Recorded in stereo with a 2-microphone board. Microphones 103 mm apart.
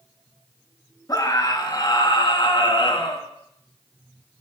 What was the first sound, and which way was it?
A scream, 40° left (ahead or behind).